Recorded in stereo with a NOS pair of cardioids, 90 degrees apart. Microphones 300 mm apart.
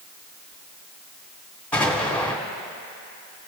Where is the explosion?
5° left, 2.5 m.